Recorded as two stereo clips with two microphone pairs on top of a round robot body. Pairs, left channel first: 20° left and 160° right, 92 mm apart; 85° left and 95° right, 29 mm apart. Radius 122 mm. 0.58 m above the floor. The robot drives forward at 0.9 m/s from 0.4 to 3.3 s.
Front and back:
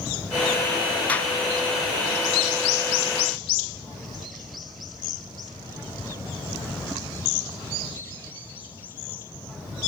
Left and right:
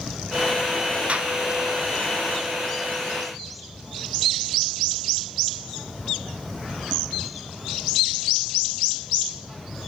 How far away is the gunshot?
About 1.6 m.